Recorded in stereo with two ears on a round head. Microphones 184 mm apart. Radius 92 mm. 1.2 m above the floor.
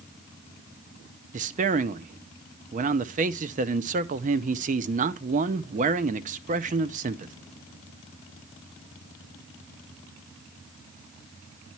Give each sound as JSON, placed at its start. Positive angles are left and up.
{"t": 1.3, "sound": "a man speaking", "side_deg": -40, "distance_m": 0.5}